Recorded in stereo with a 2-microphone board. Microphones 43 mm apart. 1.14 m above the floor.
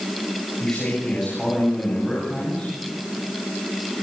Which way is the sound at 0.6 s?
15° left (ahead or behind).